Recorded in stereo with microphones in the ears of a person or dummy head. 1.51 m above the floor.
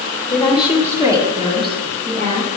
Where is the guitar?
No guitar in this recording.